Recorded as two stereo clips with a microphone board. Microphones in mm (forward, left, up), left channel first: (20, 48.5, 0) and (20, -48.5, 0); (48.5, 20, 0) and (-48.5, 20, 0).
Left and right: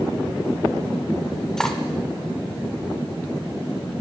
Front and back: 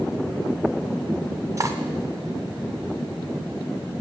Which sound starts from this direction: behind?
Cutlery clinking, at 1.6 s.